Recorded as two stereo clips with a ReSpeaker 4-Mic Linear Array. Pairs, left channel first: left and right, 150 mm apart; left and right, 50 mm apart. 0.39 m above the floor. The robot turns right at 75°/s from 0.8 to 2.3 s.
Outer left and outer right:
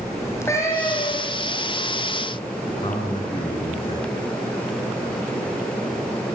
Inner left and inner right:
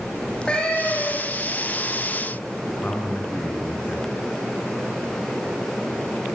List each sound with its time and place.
0.2 s a cat meowing: 20° left, 6 m; by 1.5 s 70° left, 6 m
2.7 s a man speaking: 35° left (ahead or behind), 3.5 m